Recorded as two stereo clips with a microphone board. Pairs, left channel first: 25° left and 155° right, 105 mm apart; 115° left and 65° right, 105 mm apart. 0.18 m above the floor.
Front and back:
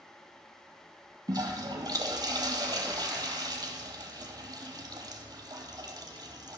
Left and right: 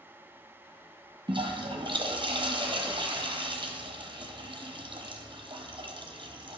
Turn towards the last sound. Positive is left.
turn(degrees=-110)